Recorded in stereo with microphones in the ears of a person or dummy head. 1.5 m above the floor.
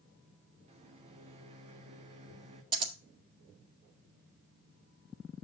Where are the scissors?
30° right (ahead or behind), 1.7 m.